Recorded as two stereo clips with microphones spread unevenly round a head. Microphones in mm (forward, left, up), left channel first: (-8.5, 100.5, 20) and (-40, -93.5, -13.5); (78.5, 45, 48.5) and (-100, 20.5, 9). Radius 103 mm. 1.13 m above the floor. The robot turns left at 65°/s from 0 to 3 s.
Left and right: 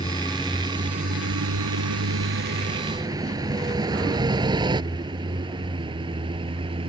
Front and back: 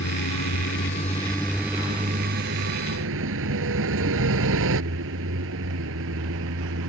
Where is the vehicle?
15° left; by 6.9 s 165° right.